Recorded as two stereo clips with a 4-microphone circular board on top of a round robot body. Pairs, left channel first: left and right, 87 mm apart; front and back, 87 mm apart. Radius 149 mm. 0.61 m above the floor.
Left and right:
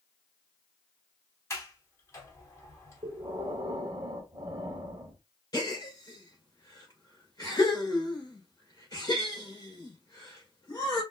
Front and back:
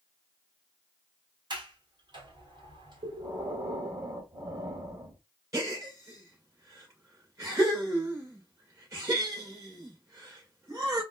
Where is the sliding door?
150° left, 1.5 m.